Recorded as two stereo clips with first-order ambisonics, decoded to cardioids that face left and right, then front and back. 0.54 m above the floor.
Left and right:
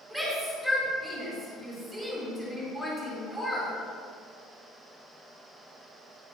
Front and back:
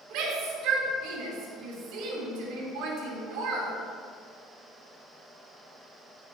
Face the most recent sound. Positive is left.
turn(degrees=-170)